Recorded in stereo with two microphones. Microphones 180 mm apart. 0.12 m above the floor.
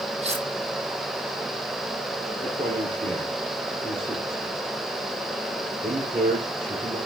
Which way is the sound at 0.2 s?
35° right (ahead or behind).